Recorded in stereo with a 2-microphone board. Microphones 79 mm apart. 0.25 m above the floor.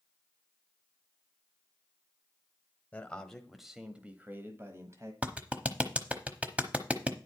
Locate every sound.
2.9 s a man speaking: 15° left (ahead or behind), 1.2 m; by 5.1 s 40° right (ahead or behind), 1.5 m
5.2 s a clap: 20° right (ahead or behind), 1.0 m